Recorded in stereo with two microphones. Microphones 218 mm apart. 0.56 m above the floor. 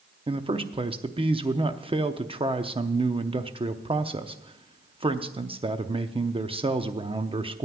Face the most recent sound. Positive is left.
turn(degrees=-25)  # may be behind; listen again after turning